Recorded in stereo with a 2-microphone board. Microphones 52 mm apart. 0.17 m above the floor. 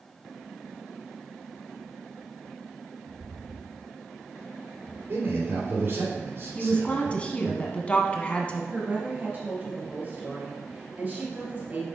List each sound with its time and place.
3.1 s footsteps: 75° right (ahead or behind), 1.7 m; by 5.0 s 40° right (ahead or behind), 2.5 m
5.1 s a man speaking: 55° right (ahead or behind), 2.5 m
6.5 s a woman speaking: 25° left (ahead or behind), 1.1 m
8.7 s a woman speaking: 35° right (ahead or behind), 3 m